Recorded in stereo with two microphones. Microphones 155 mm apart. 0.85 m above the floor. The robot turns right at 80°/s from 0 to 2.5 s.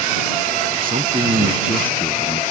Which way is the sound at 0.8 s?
75° right.